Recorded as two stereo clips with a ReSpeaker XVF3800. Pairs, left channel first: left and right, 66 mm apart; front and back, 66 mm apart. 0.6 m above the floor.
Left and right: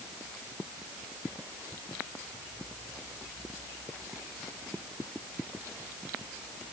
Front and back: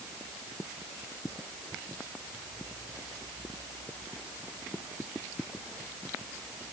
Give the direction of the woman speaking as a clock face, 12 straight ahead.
No woman speaking in this recording.